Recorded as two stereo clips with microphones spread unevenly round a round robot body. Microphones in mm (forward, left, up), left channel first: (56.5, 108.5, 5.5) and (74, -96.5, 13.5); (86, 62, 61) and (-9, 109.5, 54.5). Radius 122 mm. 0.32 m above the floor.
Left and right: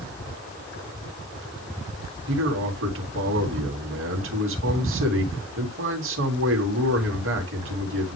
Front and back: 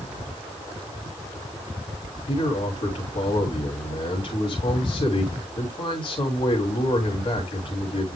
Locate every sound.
2.3 s a man speaking: 75° right, 3 m